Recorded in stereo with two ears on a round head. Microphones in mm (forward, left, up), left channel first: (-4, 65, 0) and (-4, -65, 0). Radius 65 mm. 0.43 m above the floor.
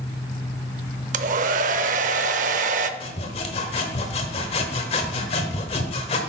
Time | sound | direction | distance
1.1 | a hair dryer | 55° right (ahead or behind) | 0.6 m
3.0 | sawing | 40° left (ahead or behind) | 1.1 m